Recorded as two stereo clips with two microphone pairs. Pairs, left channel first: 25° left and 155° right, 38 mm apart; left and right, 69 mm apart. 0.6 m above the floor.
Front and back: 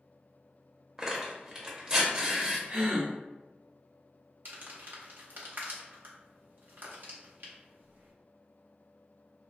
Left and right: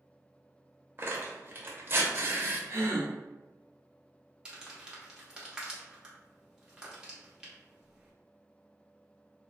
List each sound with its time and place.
1.0 s tearing paper: 100° right, 0.8 m
2.7 s a gasp: 120° right, 0.9 m
4.5 s crumpling: 165° right, 0.8 m